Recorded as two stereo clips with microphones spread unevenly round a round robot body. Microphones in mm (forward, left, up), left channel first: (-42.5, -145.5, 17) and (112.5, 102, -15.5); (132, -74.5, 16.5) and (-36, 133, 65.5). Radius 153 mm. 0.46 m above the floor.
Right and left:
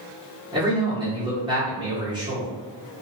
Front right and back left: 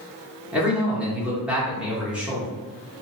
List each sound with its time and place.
0.5 s a man speaking: 25° left, 1.2 m